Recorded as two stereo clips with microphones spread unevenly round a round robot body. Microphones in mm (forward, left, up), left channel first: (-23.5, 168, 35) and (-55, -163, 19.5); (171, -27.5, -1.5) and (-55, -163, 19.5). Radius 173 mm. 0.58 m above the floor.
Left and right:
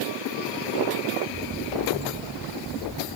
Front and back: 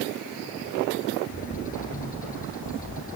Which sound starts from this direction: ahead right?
A bird, at 1.3 s.